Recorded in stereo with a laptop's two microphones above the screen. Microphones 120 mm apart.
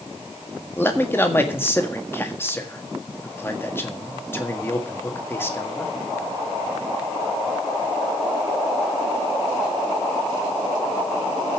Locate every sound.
0.8 s a man speaking: 20° left (ahead or behind), 1.6 m